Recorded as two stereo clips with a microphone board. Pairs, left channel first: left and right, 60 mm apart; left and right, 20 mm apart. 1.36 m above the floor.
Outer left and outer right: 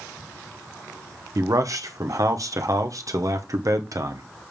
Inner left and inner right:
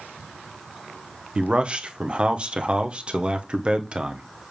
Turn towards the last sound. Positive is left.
turn(degrees=-65)  # may be behind; listen again after turning